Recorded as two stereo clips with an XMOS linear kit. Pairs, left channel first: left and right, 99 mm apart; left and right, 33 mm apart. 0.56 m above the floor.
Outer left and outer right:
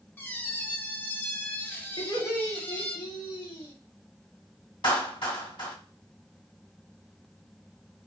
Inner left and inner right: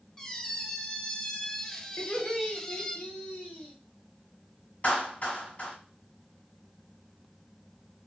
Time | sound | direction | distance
0.2 | a squeak | 20° left (ahead or behind) | 0.5 m
2.0 | laughter | 55° left (ahead or behind) | 1.5 m
4.8 | a clap | 60° left (ahead or behind) | 2 m